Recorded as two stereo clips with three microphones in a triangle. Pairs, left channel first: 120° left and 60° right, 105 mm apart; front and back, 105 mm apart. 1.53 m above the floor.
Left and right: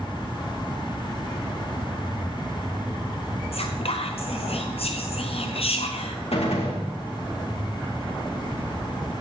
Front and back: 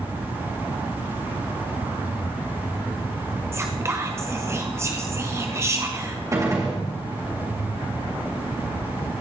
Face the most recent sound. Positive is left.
turn(degrees=125)